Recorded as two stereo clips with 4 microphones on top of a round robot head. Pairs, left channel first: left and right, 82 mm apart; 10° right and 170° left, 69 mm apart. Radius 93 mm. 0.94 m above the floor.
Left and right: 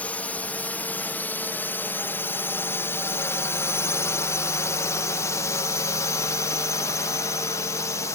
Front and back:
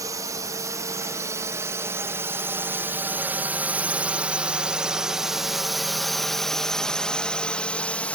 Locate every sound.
0.0 s a drone: 160° left; by 8.2 s 55° left